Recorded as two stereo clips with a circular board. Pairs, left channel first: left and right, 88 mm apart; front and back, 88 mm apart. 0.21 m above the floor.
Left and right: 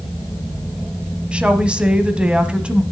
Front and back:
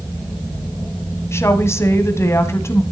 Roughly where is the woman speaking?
Ahead.